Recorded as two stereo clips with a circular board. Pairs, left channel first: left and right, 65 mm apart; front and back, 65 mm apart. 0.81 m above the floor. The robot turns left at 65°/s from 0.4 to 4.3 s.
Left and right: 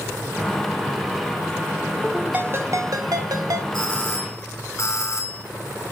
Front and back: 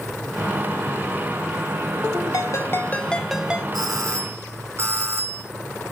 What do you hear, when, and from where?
2.3 s a ringtone: 25° right, 1.9 m; by 3.6 s 110° right, 1.9 m
3.7 s a doorbell: 165° left, 7.5 m; by 5.4 s 130° left, 7.5 m